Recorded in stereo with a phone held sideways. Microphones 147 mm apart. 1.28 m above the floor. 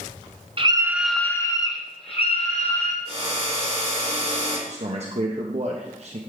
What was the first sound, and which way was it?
A scream, 40° right (ahead or behind).